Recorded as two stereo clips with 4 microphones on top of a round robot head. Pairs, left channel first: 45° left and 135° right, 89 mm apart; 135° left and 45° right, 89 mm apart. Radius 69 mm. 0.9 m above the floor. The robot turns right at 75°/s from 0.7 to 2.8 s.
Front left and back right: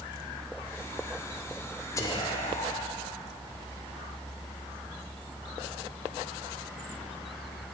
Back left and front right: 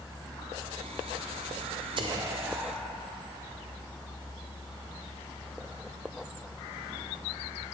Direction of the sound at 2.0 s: 15° right.